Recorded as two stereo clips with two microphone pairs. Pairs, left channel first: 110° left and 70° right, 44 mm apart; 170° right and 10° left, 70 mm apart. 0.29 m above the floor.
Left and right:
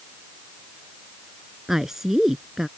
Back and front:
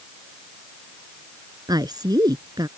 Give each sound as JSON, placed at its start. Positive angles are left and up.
{"t": 1.7, "sound": "a woman speaking", "azimuth_deg": 15}